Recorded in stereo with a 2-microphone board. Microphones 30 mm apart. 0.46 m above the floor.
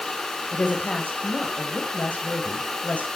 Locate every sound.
0.5 s a woman speaking: 60° left (ahead or behind), 2.5 m